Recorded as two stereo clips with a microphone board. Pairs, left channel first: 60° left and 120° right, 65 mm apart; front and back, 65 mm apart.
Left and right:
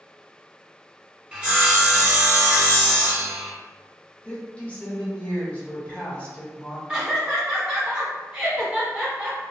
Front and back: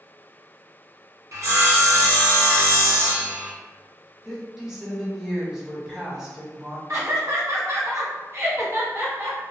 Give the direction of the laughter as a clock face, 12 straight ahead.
6 o'clock.